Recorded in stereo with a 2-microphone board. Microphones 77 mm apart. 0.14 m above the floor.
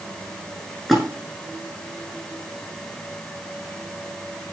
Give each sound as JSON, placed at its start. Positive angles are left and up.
{"t": 0.9, "sound": "a splash", "side_deg": -5, "distance_m": 5.5}